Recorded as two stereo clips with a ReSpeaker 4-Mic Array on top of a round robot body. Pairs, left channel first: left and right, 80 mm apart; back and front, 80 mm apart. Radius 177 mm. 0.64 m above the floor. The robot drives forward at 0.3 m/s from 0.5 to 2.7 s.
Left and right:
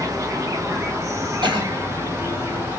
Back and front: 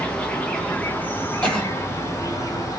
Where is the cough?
100° right, 2.5 m.